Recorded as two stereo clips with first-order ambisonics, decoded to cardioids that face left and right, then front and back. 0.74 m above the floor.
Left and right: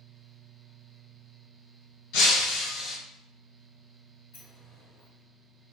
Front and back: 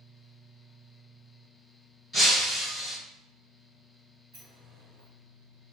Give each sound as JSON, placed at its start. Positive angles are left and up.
{"t": 2.1, "sound": "breaking glass", "azimuth_deg": 90, "distance_m": 1.5}
{"t": 4.3, "sound": "a sliding door", "azimuth_deg": 145, "distance_m": 1.6}